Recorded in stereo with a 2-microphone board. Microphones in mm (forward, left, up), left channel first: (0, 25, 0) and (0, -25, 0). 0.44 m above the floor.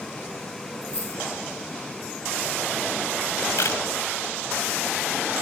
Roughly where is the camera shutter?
Left.